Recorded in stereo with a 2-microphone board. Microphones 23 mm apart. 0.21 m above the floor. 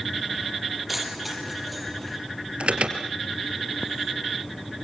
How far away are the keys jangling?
About 5 m.